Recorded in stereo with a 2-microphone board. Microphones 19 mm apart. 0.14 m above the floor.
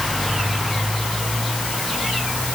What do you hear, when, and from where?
Only background noise.